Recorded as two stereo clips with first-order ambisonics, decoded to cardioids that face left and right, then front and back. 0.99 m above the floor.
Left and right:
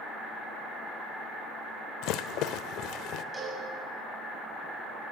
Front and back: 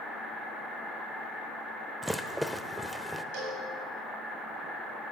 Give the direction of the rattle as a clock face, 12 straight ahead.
9 o'clock.